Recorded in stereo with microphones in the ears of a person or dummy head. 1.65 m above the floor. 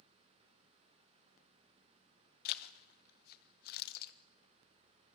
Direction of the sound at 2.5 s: 60° left (ahead or behind).